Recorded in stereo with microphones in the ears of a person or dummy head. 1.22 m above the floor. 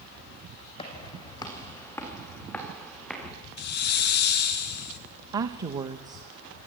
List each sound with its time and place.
0.8 s footsteps: 25° left (ahead or behind), 2.5 m; by 3.3 s centre (ahead or behind), 5 m
3.6 s a hiss: 50° left (ahead or behind), 1.1 m
5.3 s a woman speaking: 25° right (ahead or behind), 0.8 m